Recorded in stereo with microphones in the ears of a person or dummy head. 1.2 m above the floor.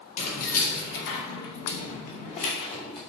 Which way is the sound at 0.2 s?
40° left (ahead or behind).